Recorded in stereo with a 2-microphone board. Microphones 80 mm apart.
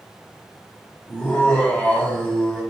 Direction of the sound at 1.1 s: 15° left (ahead or behind).